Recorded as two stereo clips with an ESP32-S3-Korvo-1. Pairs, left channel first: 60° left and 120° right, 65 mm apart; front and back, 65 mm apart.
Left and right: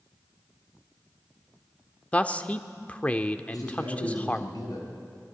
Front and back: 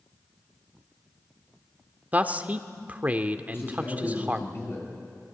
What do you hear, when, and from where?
2.1 s a man speaking: 120° left, 1.0 m
3.5 s a man speaking: 50° left, 5.5 m